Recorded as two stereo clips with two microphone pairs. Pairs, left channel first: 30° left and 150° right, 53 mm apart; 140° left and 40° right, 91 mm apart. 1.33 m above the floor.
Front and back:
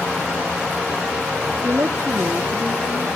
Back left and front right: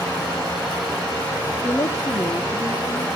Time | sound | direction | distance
1.6 | a woman speaking | 165° right | 0.6 m